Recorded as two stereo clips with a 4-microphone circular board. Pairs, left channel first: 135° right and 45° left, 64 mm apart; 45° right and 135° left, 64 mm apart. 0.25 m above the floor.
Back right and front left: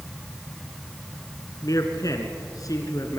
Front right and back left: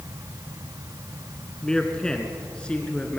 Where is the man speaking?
125° right, 2 m; by 3.2 s 115° right, 3 m.